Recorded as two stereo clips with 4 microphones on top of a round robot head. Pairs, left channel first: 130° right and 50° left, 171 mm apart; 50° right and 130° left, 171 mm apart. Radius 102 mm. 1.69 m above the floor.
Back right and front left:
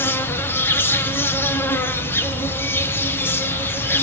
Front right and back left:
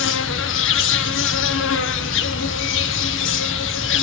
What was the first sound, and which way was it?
An insect, 55° right.